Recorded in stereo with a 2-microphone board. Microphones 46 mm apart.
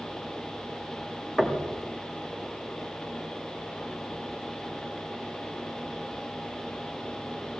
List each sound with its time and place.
1.4 s knocking: 5° left (ahead or behind), 2.5 m